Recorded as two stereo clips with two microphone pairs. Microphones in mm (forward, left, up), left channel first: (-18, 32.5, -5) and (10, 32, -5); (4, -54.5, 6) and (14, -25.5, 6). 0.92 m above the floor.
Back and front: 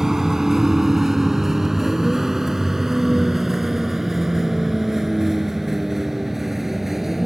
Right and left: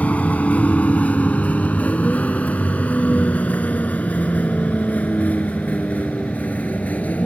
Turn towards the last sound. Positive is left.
turn(degrees=-80)